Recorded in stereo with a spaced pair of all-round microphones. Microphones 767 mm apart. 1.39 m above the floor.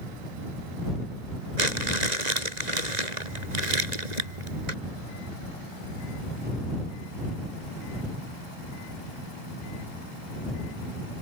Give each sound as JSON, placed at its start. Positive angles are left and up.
{"t": 1.6, "sound": "crumpling", "side_deg": -60}